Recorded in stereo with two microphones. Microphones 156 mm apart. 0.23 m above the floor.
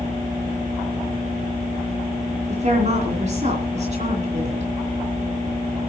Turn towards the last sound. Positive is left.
turn(degrees=-50)  # may be behind; listen again after turning